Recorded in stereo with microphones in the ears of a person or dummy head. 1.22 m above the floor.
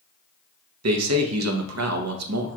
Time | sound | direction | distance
0.8 | a man speaking | 80° right | 0.8 m